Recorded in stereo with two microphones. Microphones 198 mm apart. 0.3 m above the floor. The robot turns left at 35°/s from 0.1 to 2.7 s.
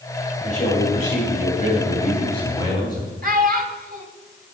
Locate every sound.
0.4 s a man speaking: 110° left, 2.0 m; by 3.1 s 30° left, 2.0 m
3.2 s a child speaking: 45° right (ahead or behind), 1.1 m